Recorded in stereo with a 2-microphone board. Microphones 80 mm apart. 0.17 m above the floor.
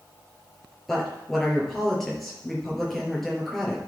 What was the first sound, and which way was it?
A woman speaking, centre (ahead or behind).